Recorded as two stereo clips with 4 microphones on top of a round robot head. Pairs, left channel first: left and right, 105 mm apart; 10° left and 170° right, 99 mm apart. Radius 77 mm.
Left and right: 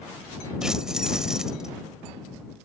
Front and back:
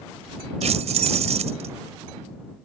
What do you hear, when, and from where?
0.6 s keys jangling: 175° right